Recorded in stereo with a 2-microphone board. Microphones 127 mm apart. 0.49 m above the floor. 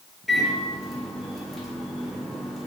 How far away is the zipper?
I don't hear a zipper.